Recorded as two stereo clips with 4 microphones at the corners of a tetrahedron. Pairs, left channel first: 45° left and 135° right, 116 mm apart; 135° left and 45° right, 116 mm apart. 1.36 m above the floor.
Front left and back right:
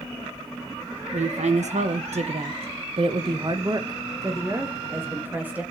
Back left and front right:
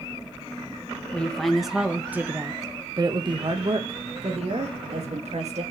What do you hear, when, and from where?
1.1 s a woman speaking: 145° right, 1.8 m; by 5.6 s 60° right, 3 m